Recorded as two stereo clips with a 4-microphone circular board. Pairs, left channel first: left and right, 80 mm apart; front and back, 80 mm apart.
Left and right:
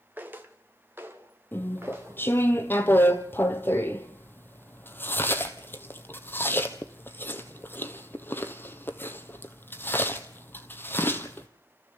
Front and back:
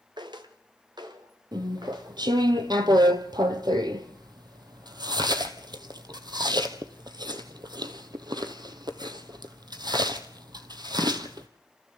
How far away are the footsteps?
About 1.8 m.